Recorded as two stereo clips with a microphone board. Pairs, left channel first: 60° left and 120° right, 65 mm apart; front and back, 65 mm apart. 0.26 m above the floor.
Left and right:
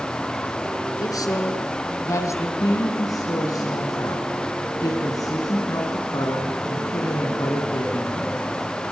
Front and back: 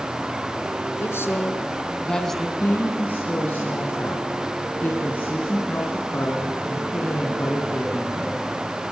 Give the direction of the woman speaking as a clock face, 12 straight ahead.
10 o'clock.